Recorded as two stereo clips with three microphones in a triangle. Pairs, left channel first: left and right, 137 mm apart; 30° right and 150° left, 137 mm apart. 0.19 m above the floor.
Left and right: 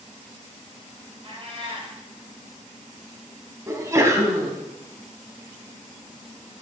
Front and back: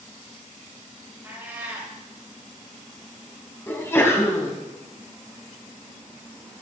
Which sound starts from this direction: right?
A sneeze, at 3.7 s.